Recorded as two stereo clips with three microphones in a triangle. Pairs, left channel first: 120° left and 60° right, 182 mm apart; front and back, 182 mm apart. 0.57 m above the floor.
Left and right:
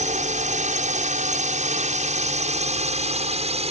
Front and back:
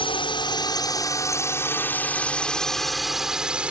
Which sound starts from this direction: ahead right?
A drone, at 0.0 s.